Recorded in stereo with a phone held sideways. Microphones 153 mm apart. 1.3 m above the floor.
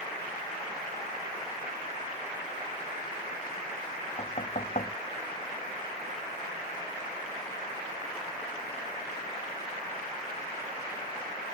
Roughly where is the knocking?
Left.